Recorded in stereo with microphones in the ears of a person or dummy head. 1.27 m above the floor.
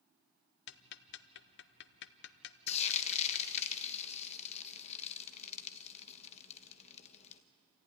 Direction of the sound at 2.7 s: 35° left (ahead or behind).